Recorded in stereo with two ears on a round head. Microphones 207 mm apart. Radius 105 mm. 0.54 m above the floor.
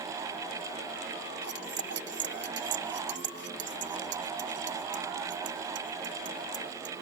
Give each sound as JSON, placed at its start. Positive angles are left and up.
{"t": 1.4, "sound": "cutlery clinking", "side_deg": -55}